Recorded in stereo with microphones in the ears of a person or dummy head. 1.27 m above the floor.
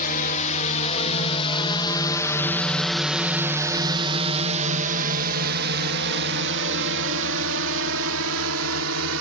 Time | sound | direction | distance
0.0 | a drone | 45° left (ahead or behind) | ?